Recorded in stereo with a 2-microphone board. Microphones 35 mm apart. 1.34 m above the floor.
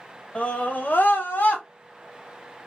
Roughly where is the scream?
Left.